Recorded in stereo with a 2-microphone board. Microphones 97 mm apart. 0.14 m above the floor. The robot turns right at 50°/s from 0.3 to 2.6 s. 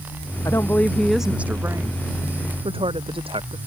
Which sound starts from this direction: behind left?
A woman speaking, at 0.5 s.